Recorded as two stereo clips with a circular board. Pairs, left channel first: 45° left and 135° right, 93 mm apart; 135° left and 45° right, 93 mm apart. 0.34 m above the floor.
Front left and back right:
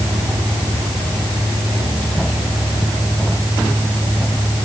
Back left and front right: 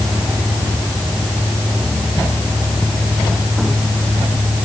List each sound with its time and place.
Only background noise.